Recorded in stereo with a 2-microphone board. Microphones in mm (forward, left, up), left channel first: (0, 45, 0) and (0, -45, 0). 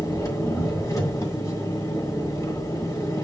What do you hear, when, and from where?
0.0 s an engine running: 40° left (ahead or behind), 2 m